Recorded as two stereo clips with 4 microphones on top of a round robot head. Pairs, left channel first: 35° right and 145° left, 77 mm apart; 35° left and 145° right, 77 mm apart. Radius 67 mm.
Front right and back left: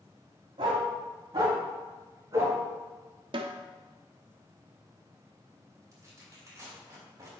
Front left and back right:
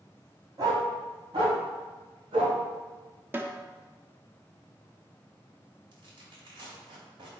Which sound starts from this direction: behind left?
A snare drum, at 3.3 s.